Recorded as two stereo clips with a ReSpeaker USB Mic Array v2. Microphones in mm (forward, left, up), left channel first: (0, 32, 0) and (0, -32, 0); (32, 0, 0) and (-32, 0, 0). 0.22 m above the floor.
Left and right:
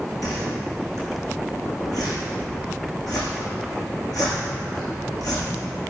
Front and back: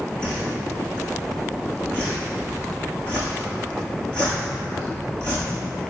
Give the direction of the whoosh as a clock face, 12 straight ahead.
10 o'clock.